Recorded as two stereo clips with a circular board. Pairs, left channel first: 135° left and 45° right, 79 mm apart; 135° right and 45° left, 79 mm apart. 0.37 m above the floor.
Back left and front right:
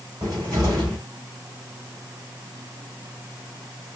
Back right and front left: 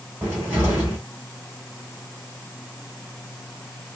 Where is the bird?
No bird in this recording.